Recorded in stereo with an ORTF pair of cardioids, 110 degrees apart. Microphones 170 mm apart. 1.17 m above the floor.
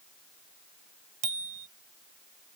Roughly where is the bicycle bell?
Ahead right.